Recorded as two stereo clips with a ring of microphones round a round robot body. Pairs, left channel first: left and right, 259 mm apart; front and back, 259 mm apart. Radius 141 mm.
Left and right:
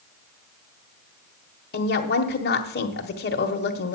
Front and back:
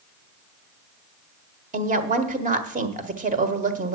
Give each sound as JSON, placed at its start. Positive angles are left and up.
{"t": 1.7, "sound": "a woman speaking", "azimuth_deg": 130, "distance_m": 1.3}